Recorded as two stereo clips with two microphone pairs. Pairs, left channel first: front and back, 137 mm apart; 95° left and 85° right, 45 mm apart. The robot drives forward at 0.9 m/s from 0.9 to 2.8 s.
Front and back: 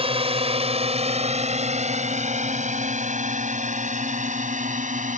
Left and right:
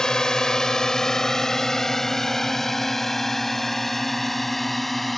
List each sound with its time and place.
0.0 s a drone: 165° left; by 5.2 s 175° right